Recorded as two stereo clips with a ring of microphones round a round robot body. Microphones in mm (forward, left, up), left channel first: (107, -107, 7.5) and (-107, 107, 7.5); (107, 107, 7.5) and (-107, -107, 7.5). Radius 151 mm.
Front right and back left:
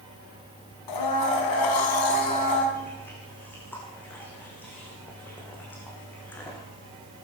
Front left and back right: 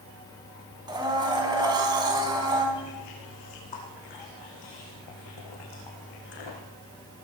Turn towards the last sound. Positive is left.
turn(degrees=40)